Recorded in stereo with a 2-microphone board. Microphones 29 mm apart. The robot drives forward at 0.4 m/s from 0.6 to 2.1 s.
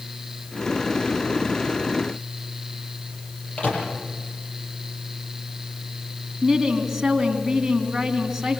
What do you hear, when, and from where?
3.6 s a microwave: 50° left (ahead or behind), 7 m
6.4 s a woman speaking: 10° right (ahead or behind), 3 m